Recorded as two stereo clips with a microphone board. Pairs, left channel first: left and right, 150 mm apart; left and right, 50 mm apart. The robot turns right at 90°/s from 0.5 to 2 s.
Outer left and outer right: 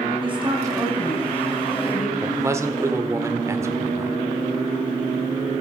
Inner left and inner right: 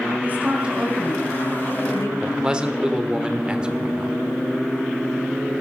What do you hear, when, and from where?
0.2 s a woman speaking: 35° right (ahead or behind), 3 m; by 2.1 s 70° left (ahead or behind), 3 m
2.2 s a man speaking: 20° right (ahead or behind), 1.3 m